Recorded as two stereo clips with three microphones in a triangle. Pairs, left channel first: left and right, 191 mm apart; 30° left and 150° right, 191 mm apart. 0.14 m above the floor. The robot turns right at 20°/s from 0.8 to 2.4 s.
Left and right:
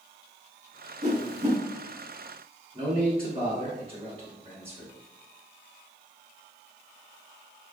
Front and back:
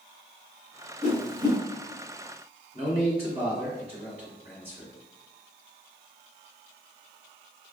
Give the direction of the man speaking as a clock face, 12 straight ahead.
4 o'clock.